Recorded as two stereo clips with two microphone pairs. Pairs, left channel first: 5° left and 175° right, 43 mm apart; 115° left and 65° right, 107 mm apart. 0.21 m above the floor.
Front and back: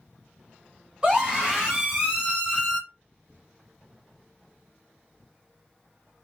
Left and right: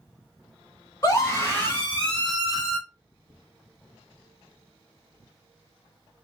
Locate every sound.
1.0 s a scream: 140° left, 2.0 m; by 2.8 s 135° right, 1.8 m